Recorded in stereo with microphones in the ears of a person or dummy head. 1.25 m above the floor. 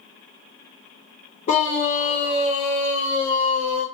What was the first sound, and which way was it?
A scream, 40° left (ahead or behind).